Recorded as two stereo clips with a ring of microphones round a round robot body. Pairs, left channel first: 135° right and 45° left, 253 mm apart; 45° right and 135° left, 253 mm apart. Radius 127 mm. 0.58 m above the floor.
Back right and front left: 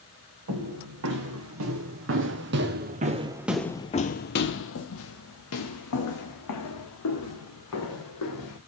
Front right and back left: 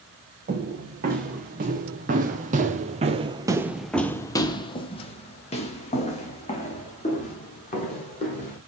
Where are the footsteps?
75° left, 2.0 m; by 8.6 s 105° right, 3 m.